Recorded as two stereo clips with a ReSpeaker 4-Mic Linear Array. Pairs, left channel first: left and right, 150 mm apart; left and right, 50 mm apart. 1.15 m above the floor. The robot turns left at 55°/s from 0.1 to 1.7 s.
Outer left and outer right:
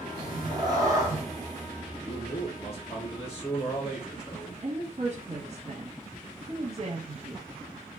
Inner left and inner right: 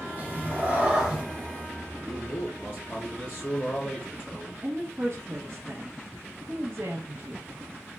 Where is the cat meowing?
100° right, 0.9 m; by 1.2 s 160° right, 0.9 m.